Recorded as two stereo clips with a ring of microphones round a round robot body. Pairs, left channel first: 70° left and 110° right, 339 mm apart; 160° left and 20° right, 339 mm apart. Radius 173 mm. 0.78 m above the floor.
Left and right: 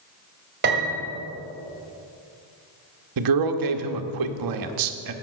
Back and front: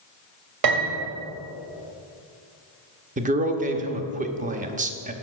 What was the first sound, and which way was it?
A piano, 50° right.